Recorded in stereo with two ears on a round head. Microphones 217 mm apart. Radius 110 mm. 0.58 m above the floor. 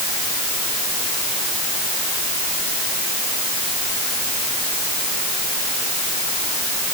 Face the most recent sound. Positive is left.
No sound to turn to.